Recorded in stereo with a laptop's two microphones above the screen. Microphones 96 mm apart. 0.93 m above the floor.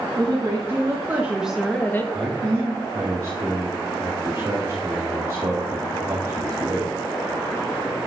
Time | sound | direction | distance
0.2 | a woman speaking | 40° right (ahead or behind) | 2 m
2.1 | a man speaking | 30° right (ahead or behind) | 2 m